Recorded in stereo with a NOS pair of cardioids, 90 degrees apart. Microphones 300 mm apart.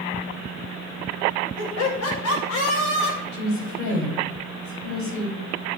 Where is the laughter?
60° left, 6 m; by 3.2 s 55° left, 4.5 m.